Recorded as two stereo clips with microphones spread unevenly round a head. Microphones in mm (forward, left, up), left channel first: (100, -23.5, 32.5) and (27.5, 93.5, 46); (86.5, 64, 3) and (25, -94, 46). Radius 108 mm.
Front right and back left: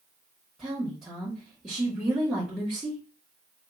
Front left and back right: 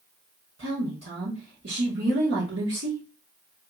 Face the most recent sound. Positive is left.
turn(degrees=-150)